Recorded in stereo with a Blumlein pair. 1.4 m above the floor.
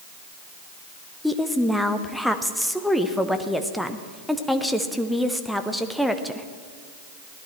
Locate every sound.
1.2 s a woman speaking: straight ahead, 1.0 m